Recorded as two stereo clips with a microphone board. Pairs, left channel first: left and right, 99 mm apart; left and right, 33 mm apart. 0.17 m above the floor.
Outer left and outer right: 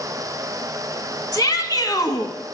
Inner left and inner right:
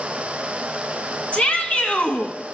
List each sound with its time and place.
1.3 s a shout: 40° left (ahead or behind), 1.2 m